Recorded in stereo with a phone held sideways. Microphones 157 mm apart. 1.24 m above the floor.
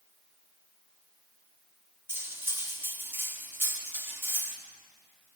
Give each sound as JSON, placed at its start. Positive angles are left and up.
{"t": 2.1, "sound": "cutlery clinking", "side_deg": -15, "distance_m": 0.9}